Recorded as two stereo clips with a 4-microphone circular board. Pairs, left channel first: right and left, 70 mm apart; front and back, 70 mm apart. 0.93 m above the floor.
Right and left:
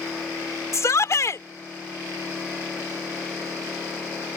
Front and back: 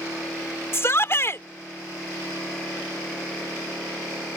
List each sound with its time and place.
0.7 s a shout: 50° right